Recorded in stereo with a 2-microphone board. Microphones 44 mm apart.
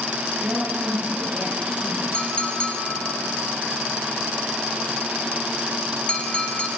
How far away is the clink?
About 1.4 m.